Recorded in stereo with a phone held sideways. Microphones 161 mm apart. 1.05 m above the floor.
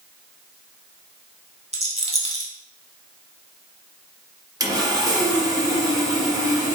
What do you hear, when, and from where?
1.7 s a rattle: 40° right (ahead or behind), 1.0 m
4.6 s sawing: 20° right (ahead or behind), 0.9 m